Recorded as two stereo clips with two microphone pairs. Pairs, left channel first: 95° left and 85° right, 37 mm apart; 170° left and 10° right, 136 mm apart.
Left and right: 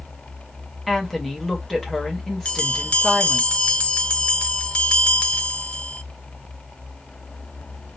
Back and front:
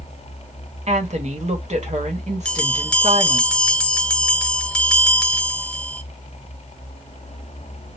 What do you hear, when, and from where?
0.9 s a woman speaking: 10° left, 1.2 m
2.5 s a bell: 90° left, 0.6 m